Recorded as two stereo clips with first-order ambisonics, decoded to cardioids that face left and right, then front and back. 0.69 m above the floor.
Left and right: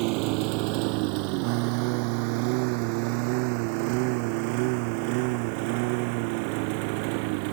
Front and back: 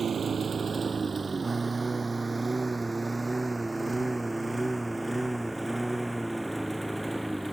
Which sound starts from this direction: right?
A lawn mower, at 0.0 s.